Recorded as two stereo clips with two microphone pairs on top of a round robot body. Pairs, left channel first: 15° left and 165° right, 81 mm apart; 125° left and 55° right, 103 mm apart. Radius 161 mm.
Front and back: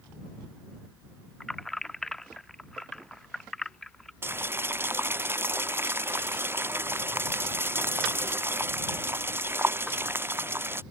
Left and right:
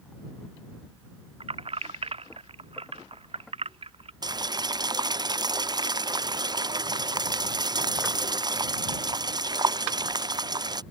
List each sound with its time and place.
1.4 s keys jangling: 70° right
4.2 s boiling: 105° right